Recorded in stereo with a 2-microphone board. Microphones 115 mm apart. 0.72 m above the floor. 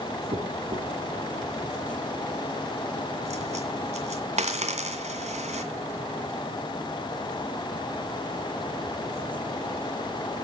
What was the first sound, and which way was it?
A dropped coin, 75° right (ahead or behind).